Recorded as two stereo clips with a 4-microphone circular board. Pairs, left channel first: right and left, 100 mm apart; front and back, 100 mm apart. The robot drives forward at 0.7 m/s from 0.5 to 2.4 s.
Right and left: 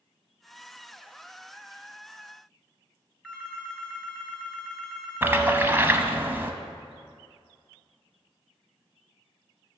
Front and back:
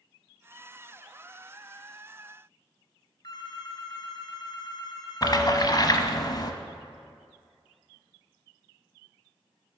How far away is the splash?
About 0.7 m.